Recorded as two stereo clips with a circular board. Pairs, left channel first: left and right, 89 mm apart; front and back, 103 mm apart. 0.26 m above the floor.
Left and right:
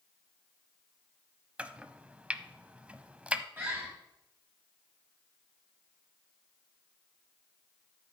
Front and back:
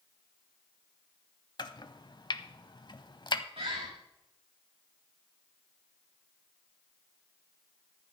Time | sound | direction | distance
1.6 | chopping | 20° right | 0.7 m
3.6 | a bird | 155° right | 6 m